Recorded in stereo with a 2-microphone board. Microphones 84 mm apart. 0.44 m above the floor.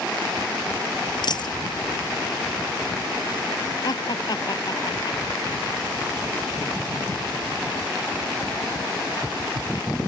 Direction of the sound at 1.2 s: 60° left (ahead or behind).